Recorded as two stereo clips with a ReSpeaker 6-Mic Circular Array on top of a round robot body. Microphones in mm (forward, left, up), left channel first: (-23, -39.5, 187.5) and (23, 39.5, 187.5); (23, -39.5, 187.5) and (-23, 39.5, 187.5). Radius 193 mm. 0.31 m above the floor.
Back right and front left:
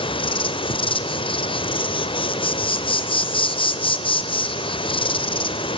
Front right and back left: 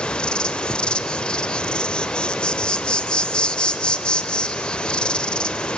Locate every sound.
0.0 s an insect: 140° right, 0.8 m